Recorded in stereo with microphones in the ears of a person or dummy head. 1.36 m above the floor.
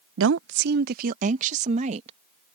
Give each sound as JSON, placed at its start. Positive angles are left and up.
{"t": 0.2, "sound": "a woman speaking", "side_deg": -75}